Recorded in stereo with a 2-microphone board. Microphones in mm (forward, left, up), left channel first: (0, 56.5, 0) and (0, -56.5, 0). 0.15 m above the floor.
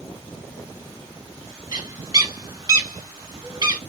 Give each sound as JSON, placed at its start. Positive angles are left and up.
{"t": 1.7, "sound": "a bird", "side_deg": -35, "distance_m": 0.7}